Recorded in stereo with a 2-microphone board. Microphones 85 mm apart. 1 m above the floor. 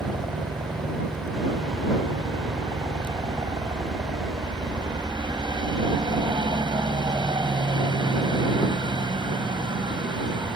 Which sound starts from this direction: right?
A helicopter, at 0.0 s.